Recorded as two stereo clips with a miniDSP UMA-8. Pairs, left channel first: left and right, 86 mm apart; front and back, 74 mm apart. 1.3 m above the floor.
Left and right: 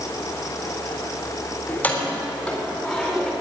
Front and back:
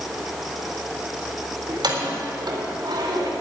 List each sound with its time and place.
1.7 s keys jangling: 160° left, 3 m; by 3.3 s straight behind, 3.5 m